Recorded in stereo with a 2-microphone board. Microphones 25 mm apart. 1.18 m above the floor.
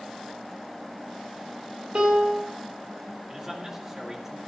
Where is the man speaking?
15° right (ahead or behind), 2 m.